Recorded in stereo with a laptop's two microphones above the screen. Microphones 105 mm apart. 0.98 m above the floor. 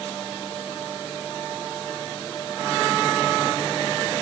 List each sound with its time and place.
Only background noise.